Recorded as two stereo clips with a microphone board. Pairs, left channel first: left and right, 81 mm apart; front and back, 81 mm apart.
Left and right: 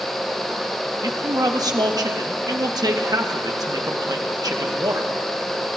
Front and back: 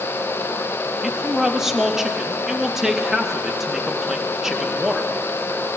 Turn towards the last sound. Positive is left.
turn(degrees=-95)